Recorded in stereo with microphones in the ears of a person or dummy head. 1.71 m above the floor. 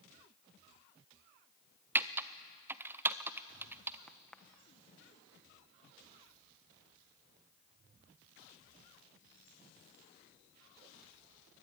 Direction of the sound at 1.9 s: 10° right (ahead or behind).